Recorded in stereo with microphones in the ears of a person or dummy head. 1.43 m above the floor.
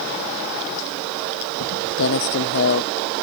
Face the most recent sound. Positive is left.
turn(degrees=60)  # may be behind; listen again after turning